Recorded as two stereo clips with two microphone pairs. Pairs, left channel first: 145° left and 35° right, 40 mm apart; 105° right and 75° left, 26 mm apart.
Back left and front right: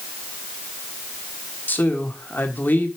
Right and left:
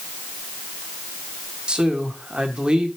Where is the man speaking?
120° left, 1.9 m.